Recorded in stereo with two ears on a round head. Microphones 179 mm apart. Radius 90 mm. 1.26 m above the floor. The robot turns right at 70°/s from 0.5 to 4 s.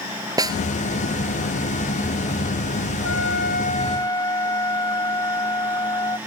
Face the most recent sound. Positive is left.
turn(degrees=165)